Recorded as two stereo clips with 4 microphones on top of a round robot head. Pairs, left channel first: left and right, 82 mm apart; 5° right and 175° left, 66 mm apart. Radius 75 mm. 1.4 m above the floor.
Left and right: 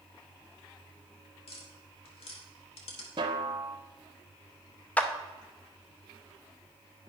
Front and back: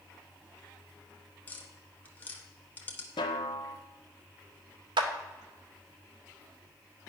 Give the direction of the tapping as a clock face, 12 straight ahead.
10 o'clock.